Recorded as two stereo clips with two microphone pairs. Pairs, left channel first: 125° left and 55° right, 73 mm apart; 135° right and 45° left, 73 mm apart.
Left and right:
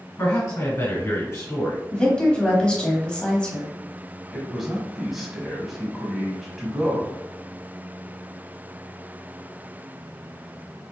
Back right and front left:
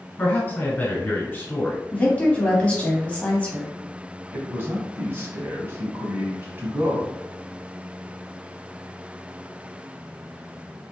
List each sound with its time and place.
0.2 s a man speaking: 170° left, 1.6 m
1.9 s a woman speaking: straight behind, 1.1 m
4.3 s a man speaking: 30° left, 1.1 m